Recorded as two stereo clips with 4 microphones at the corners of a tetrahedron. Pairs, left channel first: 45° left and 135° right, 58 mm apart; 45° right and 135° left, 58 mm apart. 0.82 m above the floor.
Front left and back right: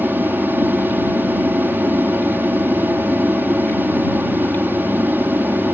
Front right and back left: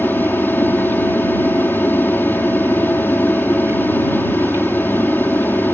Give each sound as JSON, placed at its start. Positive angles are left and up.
{"t": 0.0, "sound": "an aircraft", "azimuth_deg": -90}